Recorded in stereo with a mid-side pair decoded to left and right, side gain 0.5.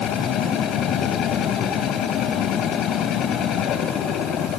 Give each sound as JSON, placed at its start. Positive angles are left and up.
{"t": 0.0, "sound": "a machine running", "azimuth_deg": 70, "distance_m": 2.0}